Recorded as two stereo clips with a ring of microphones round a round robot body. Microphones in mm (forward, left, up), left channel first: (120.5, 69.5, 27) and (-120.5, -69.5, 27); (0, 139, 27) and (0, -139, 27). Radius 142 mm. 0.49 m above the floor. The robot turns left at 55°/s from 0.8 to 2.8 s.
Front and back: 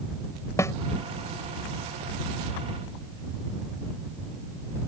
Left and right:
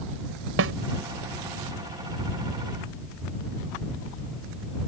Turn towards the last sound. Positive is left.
turn(degrees=-160)